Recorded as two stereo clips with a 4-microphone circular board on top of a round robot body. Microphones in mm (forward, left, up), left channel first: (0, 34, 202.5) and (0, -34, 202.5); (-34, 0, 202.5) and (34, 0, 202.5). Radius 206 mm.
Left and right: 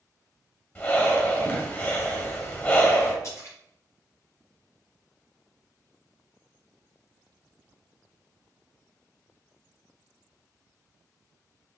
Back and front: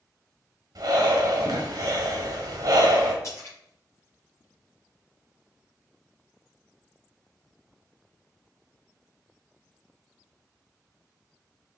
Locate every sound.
0.8 s breathing: 30° left, 1.6 m
3.2 s a splash: 135° left, 4 m